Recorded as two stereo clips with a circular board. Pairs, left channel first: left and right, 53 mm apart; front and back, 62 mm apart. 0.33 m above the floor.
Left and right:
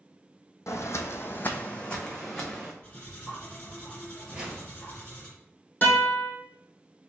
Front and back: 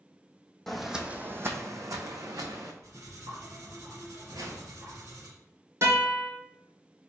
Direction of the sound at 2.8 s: 155° left.